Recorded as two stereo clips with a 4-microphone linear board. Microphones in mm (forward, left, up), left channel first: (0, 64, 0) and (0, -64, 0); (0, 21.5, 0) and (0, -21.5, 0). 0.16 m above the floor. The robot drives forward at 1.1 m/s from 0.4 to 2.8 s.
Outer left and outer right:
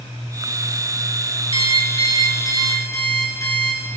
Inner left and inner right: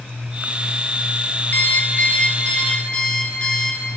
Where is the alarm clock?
45° left (ahead or behind), 1.3 m; by 3.8 s 25° left (ahead or behind), 2.5 m.